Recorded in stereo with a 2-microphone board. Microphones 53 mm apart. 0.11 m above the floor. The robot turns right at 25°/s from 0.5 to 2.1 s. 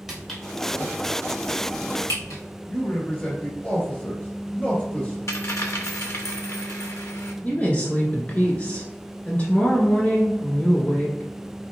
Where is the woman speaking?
30° left (ahead or behind), 1.2 m.